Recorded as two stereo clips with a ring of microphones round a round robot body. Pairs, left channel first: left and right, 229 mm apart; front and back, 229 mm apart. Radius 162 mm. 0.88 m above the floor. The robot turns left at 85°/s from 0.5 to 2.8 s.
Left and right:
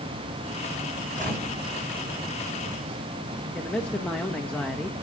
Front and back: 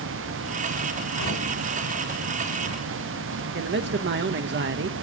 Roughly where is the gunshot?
Ahead right.